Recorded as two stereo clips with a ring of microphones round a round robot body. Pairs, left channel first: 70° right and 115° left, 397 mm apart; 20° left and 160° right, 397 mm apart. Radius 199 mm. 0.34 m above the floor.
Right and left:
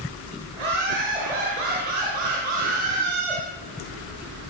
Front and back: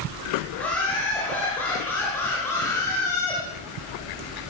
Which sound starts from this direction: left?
Laughter, at 0.5 s.